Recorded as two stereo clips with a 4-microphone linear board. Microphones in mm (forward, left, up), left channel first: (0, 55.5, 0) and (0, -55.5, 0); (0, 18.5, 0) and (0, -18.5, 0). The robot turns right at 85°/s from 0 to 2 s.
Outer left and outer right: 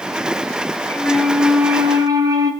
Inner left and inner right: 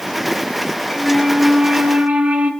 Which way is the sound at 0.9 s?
145° left.